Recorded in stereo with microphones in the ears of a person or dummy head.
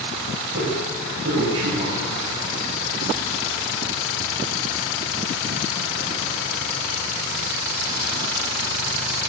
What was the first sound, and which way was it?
A man speaking, 75° right (ahead or behind).